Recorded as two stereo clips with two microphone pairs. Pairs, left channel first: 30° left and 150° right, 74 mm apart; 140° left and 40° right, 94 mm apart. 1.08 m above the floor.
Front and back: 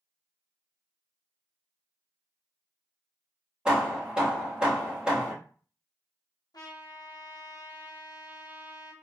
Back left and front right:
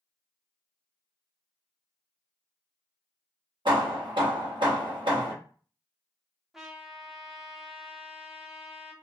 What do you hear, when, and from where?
3.6 s hammering: 70° right, 1.3 m
6.5 s a trumpet: 45° left, 0.8 m